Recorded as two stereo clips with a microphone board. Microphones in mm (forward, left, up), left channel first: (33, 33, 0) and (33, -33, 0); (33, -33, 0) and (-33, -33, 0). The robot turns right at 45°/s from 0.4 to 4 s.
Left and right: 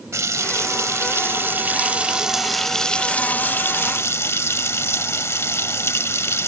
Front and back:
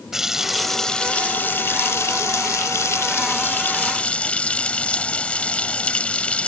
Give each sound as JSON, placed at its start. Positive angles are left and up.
{"t": 0.1, "sound": "a running tap", "azimuth_deg": -95}